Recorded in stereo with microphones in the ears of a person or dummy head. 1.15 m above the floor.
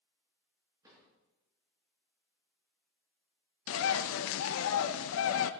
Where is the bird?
75° left (ahead or behind), 0.8 m.